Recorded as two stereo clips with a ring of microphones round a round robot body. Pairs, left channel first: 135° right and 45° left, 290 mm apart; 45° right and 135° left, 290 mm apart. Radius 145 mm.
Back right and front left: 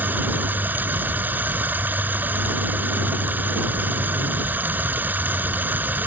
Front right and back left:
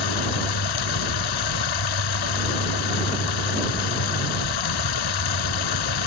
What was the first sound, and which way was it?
Running water, 40° right.